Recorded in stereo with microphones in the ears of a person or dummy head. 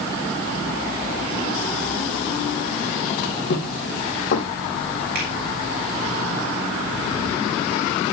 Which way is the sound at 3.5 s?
60° left (ahead or behind).